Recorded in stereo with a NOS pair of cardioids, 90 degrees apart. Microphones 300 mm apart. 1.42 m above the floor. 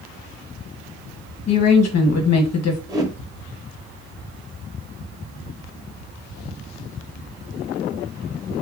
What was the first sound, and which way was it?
A woman speaking, 60° left.